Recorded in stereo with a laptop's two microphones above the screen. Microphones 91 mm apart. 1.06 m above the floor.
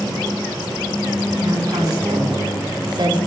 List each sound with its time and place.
1.4 s a woman speaking: 45° right (ahead or behind), 4 m; by 3.2 s 55° right (ahead or behind), 3.5 m